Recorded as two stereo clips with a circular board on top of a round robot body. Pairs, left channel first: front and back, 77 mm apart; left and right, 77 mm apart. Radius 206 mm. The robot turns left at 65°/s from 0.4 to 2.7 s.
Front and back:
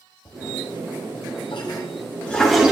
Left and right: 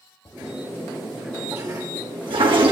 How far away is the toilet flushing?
About 1.4 m.